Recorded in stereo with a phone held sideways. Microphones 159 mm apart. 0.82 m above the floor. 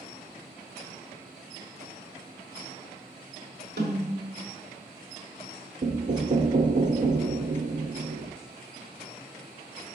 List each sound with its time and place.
3.8 s a snare drum: 85° right, 1.7 m
5.8 s knocking: 50° right (ahead or behind), 0.5 m